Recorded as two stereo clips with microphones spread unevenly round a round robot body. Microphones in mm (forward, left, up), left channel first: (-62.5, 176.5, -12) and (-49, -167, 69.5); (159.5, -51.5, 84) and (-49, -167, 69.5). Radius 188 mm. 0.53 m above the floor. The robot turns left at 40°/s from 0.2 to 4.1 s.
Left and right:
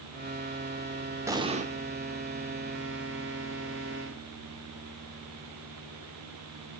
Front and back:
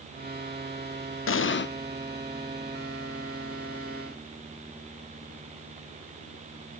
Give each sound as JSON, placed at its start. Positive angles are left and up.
{"t": 1.3, "sound": "an explosion", "azimuth_deg": 0, "distance_m": 0.8}